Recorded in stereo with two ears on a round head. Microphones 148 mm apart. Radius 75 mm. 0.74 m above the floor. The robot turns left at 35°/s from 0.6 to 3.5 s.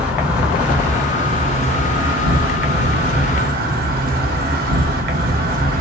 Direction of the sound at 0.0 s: 10° right.